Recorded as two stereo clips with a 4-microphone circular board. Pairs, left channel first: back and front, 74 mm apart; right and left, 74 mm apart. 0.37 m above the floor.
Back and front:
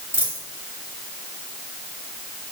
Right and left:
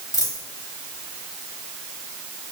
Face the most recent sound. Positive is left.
turn(degrees=-55)